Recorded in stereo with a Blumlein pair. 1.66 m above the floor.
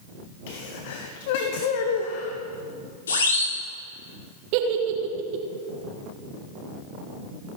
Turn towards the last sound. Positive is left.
turn(degrees=-45)